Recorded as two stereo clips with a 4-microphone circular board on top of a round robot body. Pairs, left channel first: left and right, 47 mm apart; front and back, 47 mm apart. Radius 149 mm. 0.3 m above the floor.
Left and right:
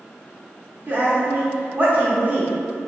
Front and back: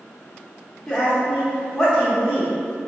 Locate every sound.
0.9 s a woman speaking: 80° right, 0.9 m